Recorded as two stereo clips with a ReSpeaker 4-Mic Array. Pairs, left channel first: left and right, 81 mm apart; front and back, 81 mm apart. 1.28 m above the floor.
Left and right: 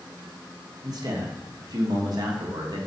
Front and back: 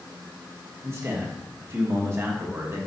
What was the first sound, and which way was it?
A man speaking, 125° right.